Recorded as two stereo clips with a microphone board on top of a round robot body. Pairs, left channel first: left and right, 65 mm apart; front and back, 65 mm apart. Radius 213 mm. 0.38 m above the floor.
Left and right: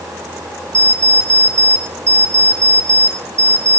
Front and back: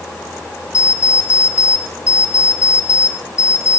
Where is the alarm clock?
50° right, 3.5 m.